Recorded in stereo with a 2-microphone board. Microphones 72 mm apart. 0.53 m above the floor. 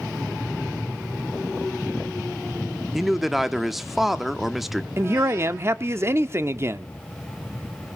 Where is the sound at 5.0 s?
35° right (ahead or behind), 0.8 m.